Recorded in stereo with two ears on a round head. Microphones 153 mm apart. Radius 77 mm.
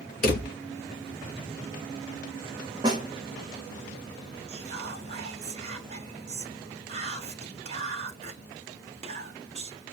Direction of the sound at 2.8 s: 25° right (ahead or behind).